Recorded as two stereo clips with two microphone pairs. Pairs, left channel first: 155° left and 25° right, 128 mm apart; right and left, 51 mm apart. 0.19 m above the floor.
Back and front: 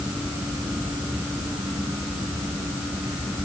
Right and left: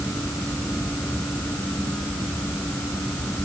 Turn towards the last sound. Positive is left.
No sound to turn to.